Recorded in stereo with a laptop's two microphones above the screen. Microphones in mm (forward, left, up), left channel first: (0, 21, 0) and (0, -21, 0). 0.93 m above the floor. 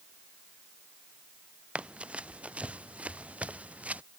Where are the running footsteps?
30° right (ahead or behind); by 4.0 s 35° right (ahead or behind).